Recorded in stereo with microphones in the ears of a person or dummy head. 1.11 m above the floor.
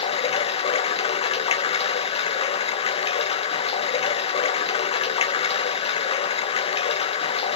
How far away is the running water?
About 0.7 m.